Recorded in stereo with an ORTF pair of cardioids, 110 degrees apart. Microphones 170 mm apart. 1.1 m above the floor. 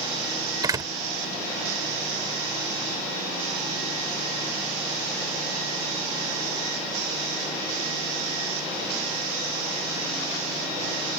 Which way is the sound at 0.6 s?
20° right.